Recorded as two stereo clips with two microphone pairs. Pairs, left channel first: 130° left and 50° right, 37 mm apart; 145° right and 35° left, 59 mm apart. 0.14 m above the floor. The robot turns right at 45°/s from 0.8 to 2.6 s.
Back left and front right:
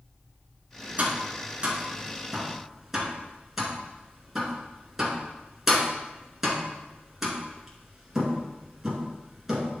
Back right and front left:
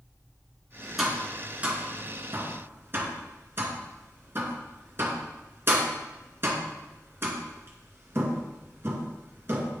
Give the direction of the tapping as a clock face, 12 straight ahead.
2 o'clock.